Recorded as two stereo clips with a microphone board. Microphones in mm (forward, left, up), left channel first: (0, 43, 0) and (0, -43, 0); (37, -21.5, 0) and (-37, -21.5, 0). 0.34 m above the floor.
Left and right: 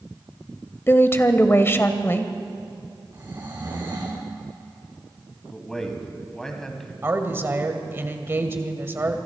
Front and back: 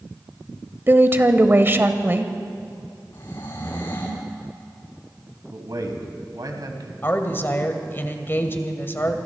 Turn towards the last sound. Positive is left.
turn(degrees=-40)